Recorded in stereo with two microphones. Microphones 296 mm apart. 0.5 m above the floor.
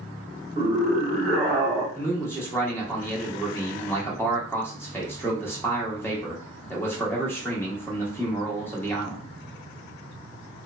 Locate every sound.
0.6 s a scream: 5° right (ahead or behind), 1.4 m; by 1.9 s 10° left (ahead or behind), 0.9 m
1.9 s a man speaking: 5° left (ahead or behind), 0.7 m